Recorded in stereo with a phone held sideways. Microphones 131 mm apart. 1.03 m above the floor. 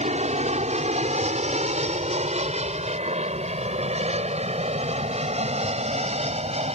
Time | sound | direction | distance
0.0 | an aircraft | 55° right (ahead or behind) | ?